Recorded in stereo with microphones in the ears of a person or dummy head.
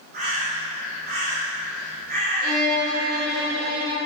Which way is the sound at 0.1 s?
55° right (ahead or behind).